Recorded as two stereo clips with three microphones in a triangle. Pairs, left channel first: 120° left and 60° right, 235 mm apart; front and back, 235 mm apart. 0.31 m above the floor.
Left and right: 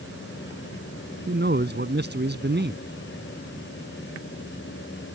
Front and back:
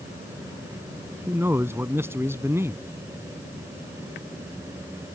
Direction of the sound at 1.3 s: 100° right.